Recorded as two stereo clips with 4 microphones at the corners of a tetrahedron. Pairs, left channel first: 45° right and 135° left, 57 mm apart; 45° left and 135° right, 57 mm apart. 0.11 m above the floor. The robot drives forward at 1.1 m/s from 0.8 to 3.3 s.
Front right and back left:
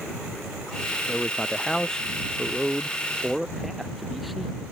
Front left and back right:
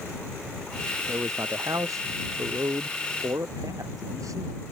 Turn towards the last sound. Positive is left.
turn(degrees=-135)